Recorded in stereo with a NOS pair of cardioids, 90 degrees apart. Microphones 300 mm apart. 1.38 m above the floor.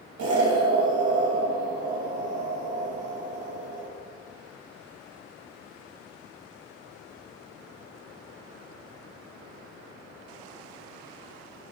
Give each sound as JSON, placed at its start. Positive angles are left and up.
{"t": 0.2, "sound": "an explosion", "azimuth_deg": -60, "distance_m": 7.5}